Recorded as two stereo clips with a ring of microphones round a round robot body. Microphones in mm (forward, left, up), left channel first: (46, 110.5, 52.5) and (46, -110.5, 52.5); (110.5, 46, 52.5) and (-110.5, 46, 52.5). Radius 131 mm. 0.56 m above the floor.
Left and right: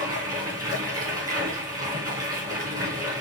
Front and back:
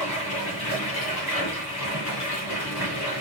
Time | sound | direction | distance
0.0 | running water | 15° right | 2.5 m